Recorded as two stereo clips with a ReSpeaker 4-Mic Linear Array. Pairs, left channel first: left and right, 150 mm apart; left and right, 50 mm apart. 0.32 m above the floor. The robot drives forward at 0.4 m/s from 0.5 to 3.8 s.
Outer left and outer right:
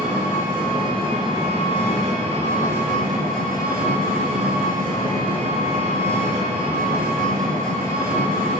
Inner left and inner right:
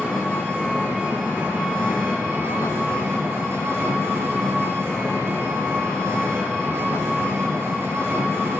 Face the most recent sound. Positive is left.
turn(degrees=-70)  # may be behind; listen again after turning